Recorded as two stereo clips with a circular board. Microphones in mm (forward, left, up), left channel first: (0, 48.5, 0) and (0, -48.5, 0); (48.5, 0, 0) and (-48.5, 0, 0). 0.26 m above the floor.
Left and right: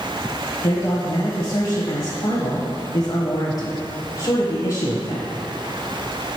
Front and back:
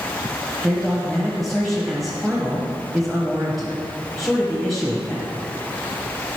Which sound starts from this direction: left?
A man speaking, at 0.6 s.